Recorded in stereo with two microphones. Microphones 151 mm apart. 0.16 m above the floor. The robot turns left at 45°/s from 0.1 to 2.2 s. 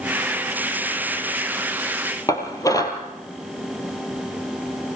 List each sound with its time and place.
2.3 s dishes clattering: 25° left (ahead or behind), 3 m